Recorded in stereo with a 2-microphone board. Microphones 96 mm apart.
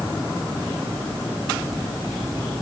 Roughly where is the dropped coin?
No dropped coin in this recording.